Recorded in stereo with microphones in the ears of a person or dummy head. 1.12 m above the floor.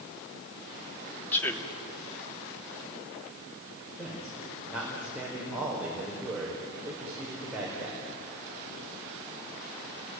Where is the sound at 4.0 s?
5° right (ahead or behind), 4.5 m.